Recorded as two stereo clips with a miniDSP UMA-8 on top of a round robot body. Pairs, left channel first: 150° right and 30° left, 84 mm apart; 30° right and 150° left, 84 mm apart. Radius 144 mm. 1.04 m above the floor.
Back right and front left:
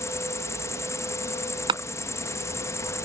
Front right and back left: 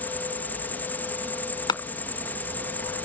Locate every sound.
0.0 s an insect: 100° right
1.7 s a clap: 5° left